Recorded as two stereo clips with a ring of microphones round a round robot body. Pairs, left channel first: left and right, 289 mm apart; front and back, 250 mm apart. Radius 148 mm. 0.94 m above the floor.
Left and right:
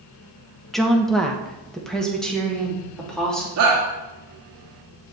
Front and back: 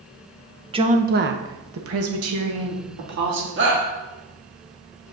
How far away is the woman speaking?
About 0.8 m.